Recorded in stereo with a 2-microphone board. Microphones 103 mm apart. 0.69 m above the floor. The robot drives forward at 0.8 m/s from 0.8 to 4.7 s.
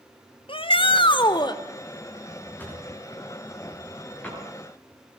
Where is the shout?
55° left (ahead or behind), 1.5 m; by 1.6 s 45° left (ahead or behind), 1.9 m.